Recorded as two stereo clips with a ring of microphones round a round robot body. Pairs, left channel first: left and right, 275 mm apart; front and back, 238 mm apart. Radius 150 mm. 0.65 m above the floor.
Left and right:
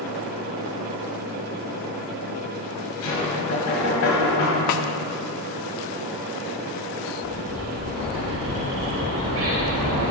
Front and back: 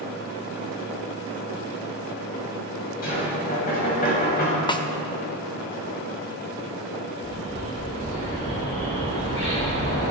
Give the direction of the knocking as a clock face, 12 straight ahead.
10 o'clock.